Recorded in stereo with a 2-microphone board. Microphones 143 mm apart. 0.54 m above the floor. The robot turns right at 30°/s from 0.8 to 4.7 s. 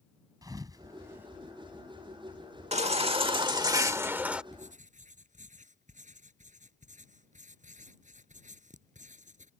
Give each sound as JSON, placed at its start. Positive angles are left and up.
{"t": 0.4, "sound": "a thud", "side_deg": -25}
{"t": 2.7, "sound": "a baby crying", "azimuth_deg": -60}
{"t": 4.5, "sound": "writing", "side_deg": -55}